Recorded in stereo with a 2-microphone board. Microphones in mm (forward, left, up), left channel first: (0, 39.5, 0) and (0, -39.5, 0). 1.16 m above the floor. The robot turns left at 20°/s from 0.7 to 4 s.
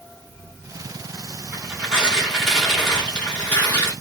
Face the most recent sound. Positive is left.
turn(degrees=150)